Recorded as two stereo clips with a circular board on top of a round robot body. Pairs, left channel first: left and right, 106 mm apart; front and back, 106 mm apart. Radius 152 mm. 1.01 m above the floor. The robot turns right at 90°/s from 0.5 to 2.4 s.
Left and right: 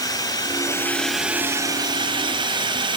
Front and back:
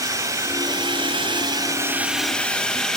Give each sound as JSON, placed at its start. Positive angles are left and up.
{"t": 0.0, "sound": "a drone", "azimuth_deg": 130}